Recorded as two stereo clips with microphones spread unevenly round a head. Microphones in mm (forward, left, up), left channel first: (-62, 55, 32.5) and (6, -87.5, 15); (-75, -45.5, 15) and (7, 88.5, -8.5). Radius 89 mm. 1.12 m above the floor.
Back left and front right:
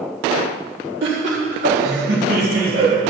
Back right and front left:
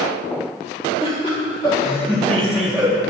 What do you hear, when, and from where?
1.0 s laughter: 60° right, 1.8 m; by 3.0 s 20° right, 1.7 m